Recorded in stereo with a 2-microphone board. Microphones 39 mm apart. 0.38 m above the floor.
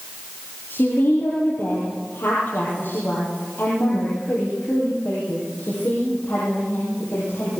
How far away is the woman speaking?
About 9 m.